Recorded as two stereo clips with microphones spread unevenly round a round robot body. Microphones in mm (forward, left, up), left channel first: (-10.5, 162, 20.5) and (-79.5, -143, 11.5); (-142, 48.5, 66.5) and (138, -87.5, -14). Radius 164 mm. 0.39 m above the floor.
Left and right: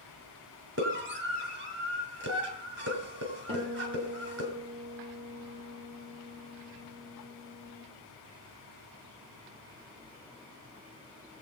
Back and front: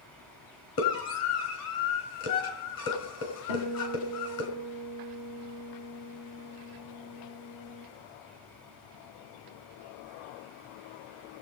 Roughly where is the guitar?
Behind.